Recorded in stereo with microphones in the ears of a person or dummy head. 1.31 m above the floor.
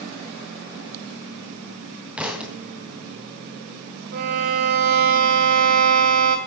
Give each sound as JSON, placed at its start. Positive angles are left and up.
{"t": 2.2, "sound": "a thud", "side_deg": -5, "distance_m": 2.5}
{"t": 4.1, "sound": "a violin", "side_deg": -50, "distance_m": 2.0}